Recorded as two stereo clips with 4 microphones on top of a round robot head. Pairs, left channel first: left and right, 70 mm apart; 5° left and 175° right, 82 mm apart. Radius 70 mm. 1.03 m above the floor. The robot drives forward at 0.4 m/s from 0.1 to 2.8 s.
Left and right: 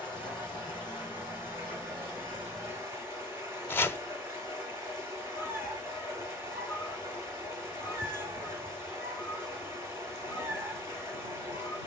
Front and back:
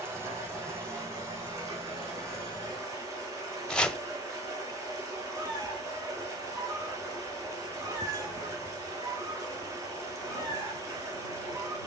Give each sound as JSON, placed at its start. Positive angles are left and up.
{"t": 0.0, "sound": "running water", "azimuth_deg": 130, "distance_m": 3.5}
{"t": 3.7, "sound": "chopping", "azimuth_deg": 75, "distance_m": 0.7}
{"t": 5.3, "sound": "a squeak", "azimuth_deg": 140, "distance_m": 3.5}